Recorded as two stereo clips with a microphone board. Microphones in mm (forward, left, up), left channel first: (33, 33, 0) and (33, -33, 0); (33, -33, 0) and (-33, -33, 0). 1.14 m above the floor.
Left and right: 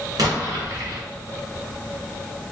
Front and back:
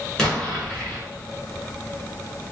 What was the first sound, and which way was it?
An explosion, 85° right.